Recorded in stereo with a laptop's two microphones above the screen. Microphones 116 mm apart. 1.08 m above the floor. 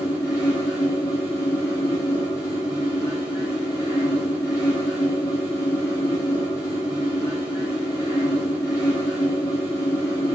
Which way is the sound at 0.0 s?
20° left (ahead or behind).